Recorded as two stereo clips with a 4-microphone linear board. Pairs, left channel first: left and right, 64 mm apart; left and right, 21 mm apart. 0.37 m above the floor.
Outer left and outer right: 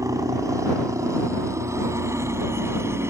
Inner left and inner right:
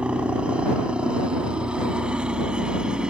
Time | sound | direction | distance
0.0 | a helicopter | 55° right (ahead or behind) | ?